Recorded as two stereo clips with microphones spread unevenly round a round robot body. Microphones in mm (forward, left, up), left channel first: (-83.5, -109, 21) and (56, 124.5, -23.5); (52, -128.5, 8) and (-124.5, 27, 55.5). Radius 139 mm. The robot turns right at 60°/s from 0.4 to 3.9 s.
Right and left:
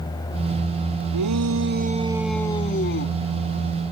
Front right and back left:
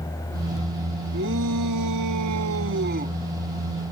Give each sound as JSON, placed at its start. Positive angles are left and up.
{"t": 1.1, "sound": "a shout", "azimuth_deg": 80}